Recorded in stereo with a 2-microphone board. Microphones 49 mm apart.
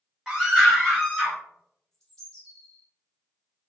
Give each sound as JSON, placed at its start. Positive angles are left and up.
{"t": 0.3, "sound": "a scream", "side_deg": -15, "distance_m": 1.3}
{"t": 1.9, "sound": "a bird", "side_deg": 15, "distance_m": 1.5}